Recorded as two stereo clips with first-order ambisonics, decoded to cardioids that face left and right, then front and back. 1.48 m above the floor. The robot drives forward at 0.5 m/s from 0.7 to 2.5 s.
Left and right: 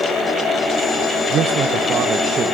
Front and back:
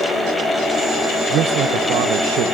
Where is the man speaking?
140° right, 0.9 m; by 2.5 s 155° right, 1.4 m.